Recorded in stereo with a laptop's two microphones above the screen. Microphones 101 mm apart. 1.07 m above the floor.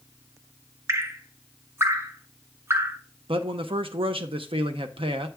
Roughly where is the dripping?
Right.